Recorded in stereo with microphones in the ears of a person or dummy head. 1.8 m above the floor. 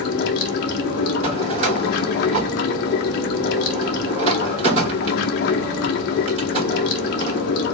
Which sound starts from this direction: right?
A drawer, at 1.2 s.